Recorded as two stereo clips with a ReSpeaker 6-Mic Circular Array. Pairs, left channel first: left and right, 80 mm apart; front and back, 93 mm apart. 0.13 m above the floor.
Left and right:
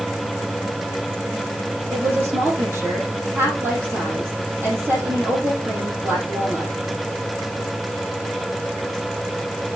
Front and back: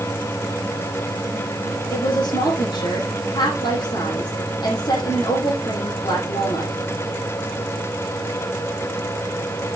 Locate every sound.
1.9 s a woman speaking: 35° right, 6 m